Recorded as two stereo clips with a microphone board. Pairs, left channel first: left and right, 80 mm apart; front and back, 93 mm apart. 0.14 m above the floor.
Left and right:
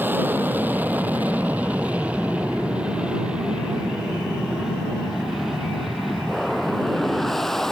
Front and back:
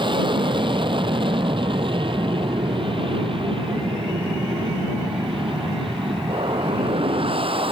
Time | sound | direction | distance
0.0 | an aircraft | 155° right | ?